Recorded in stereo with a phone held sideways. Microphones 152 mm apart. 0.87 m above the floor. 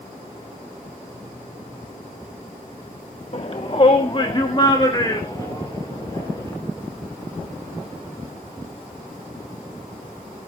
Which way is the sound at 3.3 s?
45° left (ahead or behind).